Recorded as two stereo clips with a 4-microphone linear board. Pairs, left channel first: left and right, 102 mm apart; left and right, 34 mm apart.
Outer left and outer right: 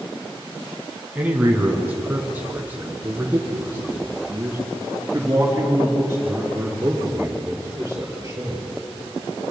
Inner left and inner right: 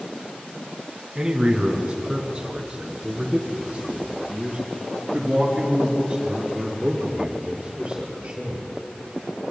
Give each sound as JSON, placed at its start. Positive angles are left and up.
{"t": 1.1, "sound": "a man speaking", "side_deg": -15, "distance_m": 2.5}